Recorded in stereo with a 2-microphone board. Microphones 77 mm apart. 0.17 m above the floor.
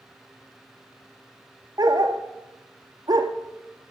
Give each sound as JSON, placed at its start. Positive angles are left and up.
{"t": 1.8, "sound": "a dog barking", "side_deg": -65, "distance_m": 1.0}